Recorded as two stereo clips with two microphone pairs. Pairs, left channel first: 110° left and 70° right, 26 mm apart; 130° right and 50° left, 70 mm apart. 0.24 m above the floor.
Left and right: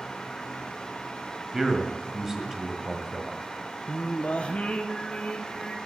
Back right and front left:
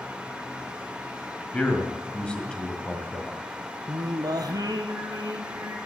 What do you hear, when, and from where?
1.5 s a man speaking: 95° right, 1.5 m
3.9 s singing: 75° left, 1.4 m